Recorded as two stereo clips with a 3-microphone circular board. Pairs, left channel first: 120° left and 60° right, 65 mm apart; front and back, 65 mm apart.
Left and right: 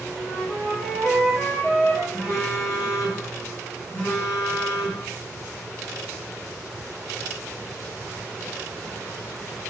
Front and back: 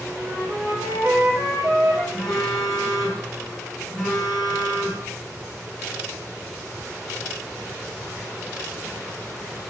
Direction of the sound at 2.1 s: 95° left.